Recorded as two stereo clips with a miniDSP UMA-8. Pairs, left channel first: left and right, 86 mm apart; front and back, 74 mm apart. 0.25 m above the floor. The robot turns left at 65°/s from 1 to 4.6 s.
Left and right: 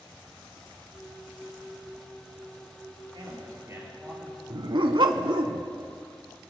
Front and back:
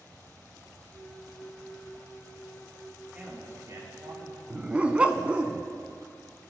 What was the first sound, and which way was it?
A man speaking, 105° right.